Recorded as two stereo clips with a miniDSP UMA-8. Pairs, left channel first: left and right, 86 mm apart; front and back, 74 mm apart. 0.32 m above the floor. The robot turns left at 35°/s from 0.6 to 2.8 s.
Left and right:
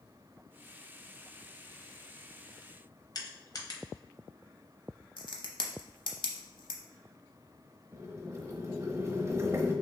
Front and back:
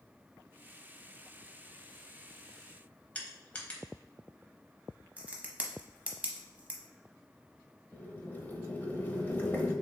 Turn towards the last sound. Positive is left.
turn(degrees=-50)